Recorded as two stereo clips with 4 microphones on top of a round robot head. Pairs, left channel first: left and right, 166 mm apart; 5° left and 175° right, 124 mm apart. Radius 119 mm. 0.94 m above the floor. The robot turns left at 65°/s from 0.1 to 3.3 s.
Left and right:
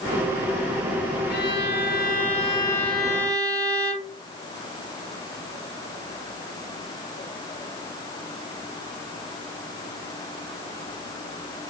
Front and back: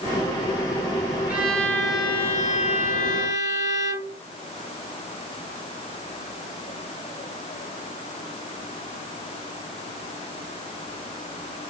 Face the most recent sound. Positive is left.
turn(degrees=-20)